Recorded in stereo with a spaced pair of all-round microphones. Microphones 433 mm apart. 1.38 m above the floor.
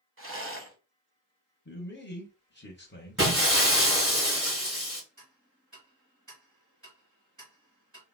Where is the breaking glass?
30° right (ahead or behind), 2.5 m.